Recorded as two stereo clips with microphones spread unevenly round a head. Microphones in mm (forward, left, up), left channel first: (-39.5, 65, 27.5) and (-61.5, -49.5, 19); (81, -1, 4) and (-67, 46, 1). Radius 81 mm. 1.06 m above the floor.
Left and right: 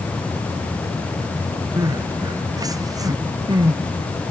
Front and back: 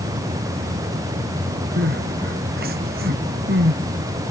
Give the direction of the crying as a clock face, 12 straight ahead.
5 o'clock.